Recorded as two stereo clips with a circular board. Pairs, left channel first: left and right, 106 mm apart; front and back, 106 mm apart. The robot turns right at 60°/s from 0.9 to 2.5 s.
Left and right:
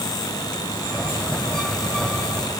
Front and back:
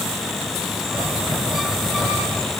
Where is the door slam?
I don't hear a door slam.